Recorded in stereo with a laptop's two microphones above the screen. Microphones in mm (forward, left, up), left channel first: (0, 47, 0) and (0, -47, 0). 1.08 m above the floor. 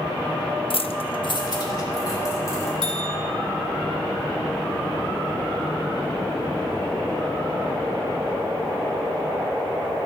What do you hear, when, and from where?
0.7 s keys jangling: 65° left (ahead or behind), 0.6 m; by 2.7 s 35° left (ahead or behind), 3 m
2.8 s a bell: 55° right (ahead or behind), 3 m